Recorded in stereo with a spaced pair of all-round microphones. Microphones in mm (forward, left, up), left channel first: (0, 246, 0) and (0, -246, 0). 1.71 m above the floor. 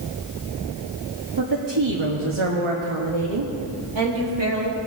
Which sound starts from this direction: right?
A woman speaking, at 1.4 s.